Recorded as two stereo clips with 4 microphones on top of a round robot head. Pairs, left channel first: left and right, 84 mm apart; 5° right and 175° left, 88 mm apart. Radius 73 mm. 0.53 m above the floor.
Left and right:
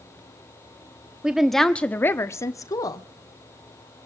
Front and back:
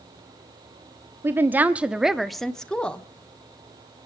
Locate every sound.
1.2 s a woman speaking: 160° right, 1.1 m; by 3.0 s 70° left, 1.6 m